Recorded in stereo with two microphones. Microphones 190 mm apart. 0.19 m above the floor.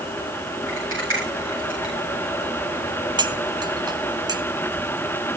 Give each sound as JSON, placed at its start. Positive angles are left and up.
{"t": 0.7, "sound": "a rattle", "side_deg": -80, "distance_m": 9.5}
{"t": 3.2, "sound": "cutlery clinking", "side_deg": -20, "distance_m": 0.8}